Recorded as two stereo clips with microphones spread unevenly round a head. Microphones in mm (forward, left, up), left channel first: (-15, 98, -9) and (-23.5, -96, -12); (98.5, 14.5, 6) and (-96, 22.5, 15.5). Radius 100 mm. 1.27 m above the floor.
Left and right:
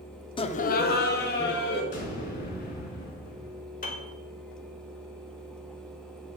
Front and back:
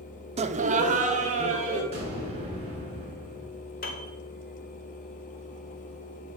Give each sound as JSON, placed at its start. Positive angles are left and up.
{"t": 0.4, "sound": "laughter", "azimuth_deg": 135, "distance_m": 0.6}
{"t": 1.9, "sound": "an explosion", "azimuth_deg": 120, "distance_m": 3.5}
{"t": 3.8, "sound": "a piano", "azimuth_deg": 40, "distance_m": 1.7}